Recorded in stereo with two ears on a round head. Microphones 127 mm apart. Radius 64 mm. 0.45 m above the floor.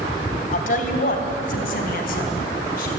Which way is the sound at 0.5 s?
60° left (ahead or behind).